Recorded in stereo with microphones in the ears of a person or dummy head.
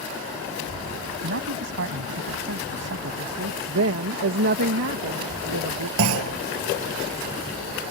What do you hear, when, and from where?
1.2 s a man speaking: 60° right (ahead or behind)
3.7 s a woman speaking: 60° right (ahead or behind)
6.0 s a clunk: 75° right (ahead or behind)